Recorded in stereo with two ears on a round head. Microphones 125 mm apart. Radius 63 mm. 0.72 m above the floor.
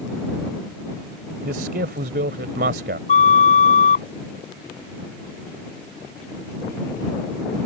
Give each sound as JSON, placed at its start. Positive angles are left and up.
{"t": 1.4, "sound": "a man speaking", "side_deg": -80}
{"t": 3.1, "sound": "a flute", "side_deg": 60}